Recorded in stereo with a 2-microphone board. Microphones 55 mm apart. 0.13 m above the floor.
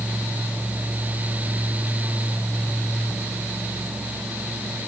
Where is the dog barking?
No dog barking in this recording.